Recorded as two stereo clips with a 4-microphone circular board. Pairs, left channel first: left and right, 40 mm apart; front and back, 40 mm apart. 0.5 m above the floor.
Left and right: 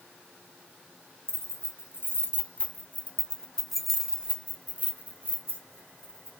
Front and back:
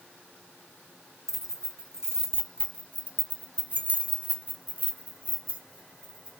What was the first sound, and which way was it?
Keys jangling, 100° left.